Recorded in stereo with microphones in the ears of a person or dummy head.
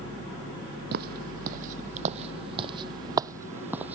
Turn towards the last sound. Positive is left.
turn(degrees=-10)  # may be behind; listen again after turning